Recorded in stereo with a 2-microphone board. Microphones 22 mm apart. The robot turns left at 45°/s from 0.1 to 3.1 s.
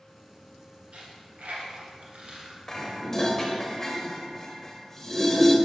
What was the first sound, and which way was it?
A dropped coin, 65° right (ahead or behind).